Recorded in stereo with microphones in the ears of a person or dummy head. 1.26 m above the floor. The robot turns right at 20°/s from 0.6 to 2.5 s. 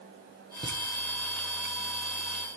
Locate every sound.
0.6 s laughter: 25° right (ahead or behind), 1.2 m